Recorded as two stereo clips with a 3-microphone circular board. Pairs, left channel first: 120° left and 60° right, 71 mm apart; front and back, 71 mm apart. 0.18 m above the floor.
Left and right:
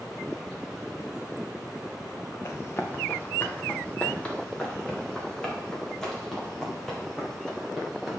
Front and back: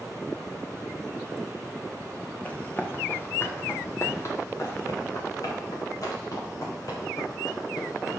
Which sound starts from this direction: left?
Running footsteps, at 2.5 s.